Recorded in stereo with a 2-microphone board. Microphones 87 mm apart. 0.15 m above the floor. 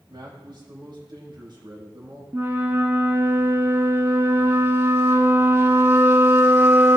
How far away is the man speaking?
About 5 m.